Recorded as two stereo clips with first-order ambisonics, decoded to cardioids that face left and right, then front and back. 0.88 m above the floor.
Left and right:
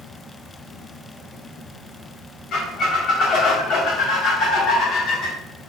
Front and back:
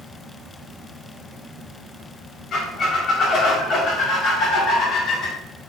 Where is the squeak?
50° left, 0.5 m.